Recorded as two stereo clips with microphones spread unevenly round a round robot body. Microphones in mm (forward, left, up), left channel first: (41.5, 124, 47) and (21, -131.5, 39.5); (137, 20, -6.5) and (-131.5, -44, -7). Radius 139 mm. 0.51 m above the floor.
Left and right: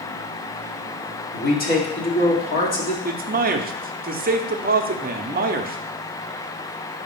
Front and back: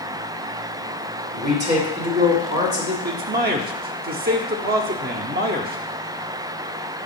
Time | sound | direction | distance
1.3 | a man speaking | 135° left | 1.9 m
3.0 | a man speaking | 125° right | 0.8 m